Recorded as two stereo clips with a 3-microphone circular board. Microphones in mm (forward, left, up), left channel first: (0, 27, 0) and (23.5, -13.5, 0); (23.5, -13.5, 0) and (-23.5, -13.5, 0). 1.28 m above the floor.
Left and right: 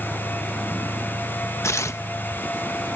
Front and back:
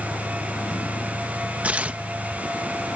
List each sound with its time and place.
0.0 s a vehicle: 10° left; by 3.0 s 20° left
1.6 s tearing paper: 120° left